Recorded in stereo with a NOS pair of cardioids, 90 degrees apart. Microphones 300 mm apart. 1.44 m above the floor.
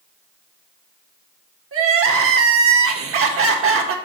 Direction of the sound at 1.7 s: 50° right.